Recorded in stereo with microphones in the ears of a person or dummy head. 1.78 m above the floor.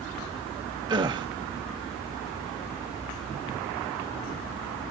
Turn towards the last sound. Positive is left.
turn(degrees=-30)  # may be behind; listen again after turning